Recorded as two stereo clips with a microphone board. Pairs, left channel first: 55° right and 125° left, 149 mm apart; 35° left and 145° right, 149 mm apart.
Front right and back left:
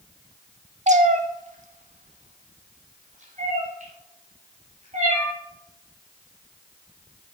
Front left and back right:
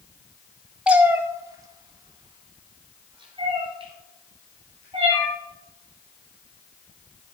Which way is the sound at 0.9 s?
135° left.